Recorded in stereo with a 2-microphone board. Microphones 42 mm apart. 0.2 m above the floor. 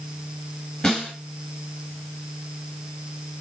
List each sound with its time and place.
0.8 s a snare drum: 30° left (ahead or behind), 3 m